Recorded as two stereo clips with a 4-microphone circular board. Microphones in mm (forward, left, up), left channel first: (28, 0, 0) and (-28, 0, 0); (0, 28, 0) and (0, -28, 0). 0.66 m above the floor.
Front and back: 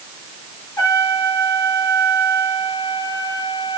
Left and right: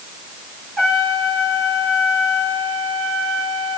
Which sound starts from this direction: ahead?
A trumpet, at 0.8 s.